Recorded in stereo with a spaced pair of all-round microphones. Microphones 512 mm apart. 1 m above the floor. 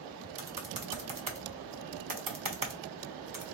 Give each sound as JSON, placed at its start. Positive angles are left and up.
{"t": 0.4, "sound": "typing on a keyboard", "side_deg": -45, "distance_m": 0.7}